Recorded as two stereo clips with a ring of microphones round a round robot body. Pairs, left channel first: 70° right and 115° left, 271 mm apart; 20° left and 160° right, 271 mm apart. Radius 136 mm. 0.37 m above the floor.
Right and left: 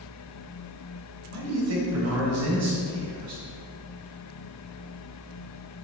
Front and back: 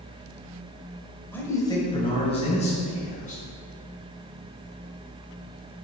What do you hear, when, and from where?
1.3 s a man speaking: 105° left, 1.7 m; by 3.4 s 85° left, 4.5 m